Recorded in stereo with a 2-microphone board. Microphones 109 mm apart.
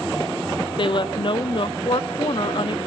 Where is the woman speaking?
50° left (ahead or behind), 0.5 m.